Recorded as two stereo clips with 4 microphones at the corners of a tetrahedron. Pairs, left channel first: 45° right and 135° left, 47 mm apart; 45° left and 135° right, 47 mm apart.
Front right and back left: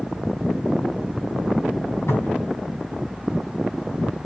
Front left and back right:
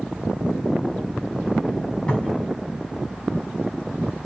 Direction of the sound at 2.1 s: 25° right.